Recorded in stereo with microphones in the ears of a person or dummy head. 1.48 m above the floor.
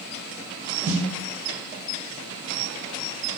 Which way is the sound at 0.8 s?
45° right (ahead or behind).